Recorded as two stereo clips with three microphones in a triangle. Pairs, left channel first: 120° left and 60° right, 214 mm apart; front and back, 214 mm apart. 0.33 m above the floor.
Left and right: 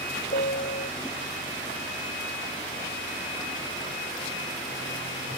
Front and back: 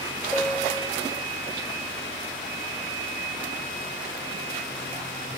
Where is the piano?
85° left.